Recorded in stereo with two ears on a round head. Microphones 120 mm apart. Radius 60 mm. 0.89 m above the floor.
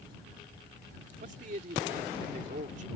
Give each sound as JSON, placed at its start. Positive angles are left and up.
{"t": 1.2, "sound": "a man speaking", "side_deg": -60}